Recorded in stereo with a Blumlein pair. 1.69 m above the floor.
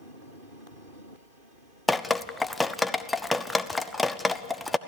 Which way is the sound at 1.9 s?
10° left.